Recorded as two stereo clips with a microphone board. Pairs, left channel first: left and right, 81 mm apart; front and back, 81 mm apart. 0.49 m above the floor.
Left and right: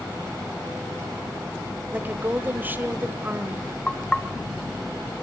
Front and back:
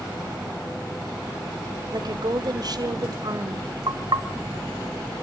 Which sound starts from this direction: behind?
Knocking, at 3.9 s.